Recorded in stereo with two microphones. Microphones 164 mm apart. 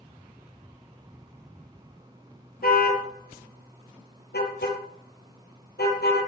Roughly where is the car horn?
Left.